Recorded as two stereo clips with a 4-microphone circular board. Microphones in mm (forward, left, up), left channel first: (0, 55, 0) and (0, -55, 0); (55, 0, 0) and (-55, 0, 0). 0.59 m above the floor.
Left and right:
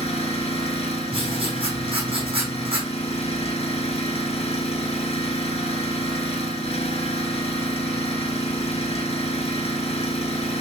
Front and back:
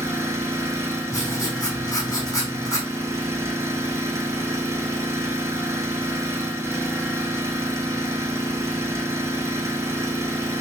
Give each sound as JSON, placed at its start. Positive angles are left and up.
{"t": 0.0, "sound": "an engine running", "azimuth_deg": 115, "distance_m": 3.0}
{"t": 1.1, "sound": "writing", "azimuth_deg": -55, "distance_m": 5.0}